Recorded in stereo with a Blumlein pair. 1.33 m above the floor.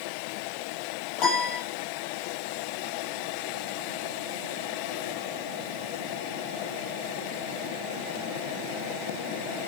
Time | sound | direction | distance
1.2 | a piano | 35° left | 5.5 m